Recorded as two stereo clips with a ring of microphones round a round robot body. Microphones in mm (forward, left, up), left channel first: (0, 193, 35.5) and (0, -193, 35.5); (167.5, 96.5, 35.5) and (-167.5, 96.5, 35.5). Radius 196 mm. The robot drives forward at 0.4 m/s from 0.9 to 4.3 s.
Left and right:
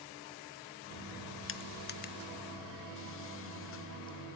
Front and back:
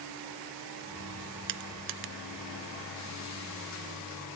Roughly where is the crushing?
Behind left.